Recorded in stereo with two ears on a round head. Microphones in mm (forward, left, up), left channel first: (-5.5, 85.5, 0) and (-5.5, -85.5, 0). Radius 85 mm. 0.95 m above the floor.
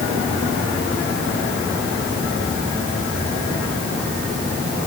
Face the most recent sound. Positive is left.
No sound to turn to.